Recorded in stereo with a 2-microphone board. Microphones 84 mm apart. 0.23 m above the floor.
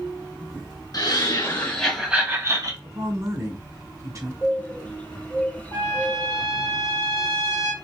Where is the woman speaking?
45° right (ahead or behind), 2.5 m.